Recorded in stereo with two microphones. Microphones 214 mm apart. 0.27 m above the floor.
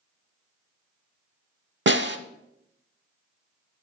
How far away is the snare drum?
About 0.7 m.